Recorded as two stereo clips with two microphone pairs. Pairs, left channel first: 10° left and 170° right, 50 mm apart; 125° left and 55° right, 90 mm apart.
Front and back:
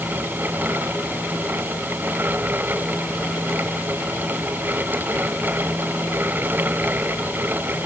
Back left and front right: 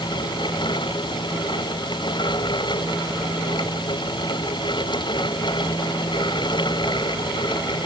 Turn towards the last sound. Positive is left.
No sound to turn to.